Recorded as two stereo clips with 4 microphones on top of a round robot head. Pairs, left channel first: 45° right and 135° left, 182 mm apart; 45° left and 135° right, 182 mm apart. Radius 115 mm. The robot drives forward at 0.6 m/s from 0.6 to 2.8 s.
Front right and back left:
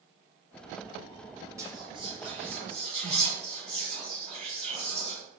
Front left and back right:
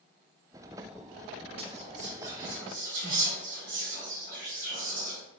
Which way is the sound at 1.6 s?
160° right.